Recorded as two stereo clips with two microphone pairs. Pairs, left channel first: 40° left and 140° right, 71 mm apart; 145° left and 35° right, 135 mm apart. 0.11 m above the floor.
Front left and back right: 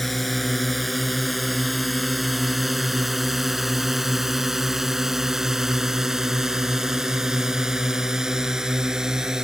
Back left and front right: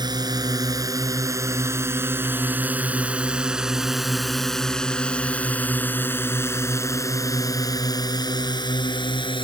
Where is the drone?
50° right; by 9.4 s 145° left.